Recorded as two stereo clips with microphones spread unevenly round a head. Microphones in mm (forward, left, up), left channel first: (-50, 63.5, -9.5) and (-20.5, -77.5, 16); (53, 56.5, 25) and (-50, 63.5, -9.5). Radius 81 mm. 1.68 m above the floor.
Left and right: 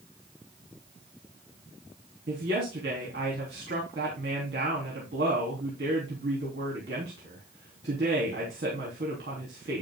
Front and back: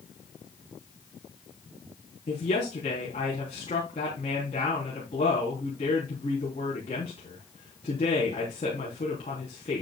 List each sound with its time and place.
2.3 s a woman speaking: 50° right, 3.5 m